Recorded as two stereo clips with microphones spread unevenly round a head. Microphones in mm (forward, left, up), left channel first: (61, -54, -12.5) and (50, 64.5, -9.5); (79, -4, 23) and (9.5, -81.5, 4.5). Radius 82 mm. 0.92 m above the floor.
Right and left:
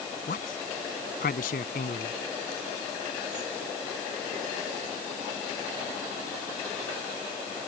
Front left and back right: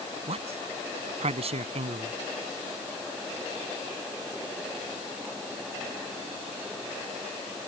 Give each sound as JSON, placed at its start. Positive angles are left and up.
{"t": 0.3, "sound": "a man speaking", "azimuth_deg": -110}